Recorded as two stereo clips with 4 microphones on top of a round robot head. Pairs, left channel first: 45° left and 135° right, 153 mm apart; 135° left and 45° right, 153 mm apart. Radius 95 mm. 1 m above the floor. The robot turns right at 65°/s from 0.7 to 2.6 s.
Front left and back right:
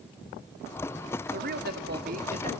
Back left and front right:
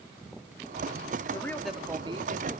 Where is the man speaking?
160° right, 2.5 m; by 2.5 s 80° right, 2.5 m.